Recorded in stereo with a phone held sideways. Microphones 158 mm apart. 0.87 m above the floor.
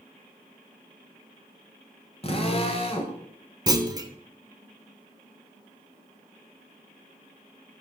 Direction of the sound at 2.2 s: 40° left (ahead or behind).